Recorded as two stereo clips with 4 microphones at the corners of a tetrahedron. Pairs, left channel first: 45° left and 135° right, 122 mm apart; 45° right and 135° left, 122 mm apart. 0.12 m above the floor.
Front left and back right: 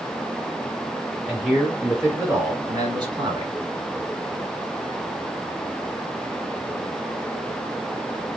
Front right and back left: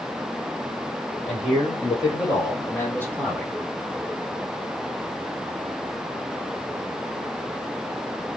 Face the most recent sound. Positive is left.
turn(degrees=-135)